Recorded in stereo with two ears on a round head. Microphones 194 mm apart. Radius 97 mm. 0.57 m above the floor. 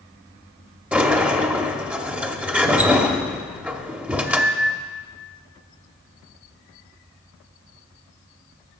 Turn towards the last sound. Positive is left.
turn(degrees=-5)  # may be behind; listen again after turning